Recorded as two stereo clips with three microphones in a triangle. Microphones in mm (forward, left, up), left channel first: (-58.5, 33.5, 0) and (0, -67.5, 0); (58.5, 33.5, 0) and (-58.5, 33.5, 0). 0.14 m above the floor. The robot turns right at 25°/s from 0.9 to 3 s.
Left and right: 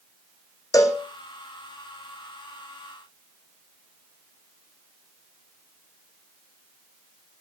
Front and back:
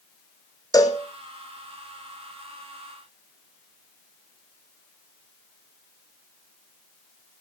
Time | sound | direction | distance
0.7 | a cowbell | 60° left | 1.7 m